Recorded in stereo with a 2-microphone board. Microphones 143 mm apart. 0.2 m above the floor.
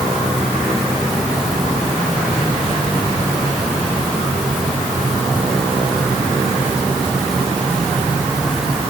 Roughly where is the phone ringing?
No phone ringing in this recording.